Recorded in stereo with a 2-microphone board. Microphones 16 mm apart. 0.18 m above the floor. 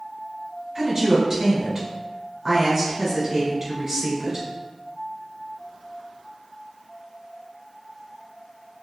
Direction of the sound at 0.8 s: 10° right (ahead or behind).